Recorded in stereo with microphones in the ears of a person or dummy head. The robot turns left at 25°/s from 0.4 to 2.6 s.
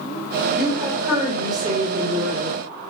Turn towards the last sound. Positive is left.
turn(degrees=-50)